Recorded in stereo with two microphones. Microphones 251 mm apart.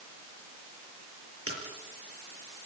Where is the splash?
70° right (ahead or behind), 6.5 m.